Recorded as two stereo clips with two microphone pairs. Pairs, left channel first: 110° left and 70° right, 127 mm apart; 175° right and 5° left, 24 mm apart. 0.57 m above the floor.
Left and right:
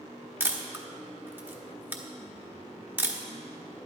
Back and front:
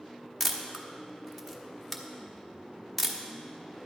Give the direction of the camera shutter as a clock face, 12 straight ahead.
4 o'clock.